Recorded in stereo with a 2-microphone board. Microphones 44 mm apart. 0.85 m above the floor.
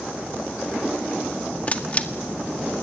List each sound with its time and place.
1.7 s a camera shutter: 35° left (ahead or behind), 1.6 m